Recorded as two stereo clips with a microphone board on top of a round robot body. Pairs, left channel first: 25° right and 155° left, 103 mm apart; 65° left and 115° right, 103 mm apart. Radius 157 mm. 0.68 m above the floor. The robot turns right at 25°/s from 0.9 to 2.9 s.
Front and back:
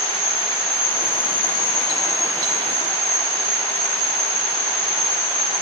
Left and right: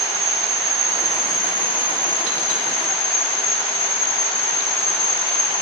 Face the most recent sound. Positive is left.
turn(degrees=55)